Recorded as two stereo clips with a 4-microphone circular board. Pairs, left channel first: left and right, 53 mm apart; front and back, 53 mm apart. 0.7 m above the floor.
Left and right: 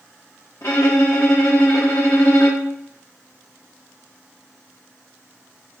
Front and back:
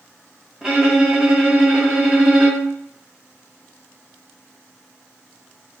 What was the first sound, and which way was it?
A violin, 100° left.